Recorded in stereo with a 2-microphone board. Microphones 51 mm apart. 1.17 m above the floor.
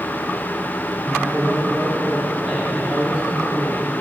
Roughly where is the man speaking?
Centre.